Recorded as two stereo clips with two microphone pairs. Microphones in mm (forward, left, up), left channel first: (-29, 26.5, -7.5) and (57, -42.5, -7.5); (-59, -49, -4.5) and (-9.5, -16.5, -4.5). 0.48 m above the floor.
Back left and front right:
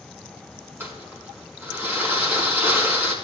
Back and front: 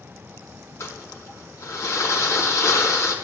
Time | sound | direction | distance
0.8 | crumpling | 110° right | 4 m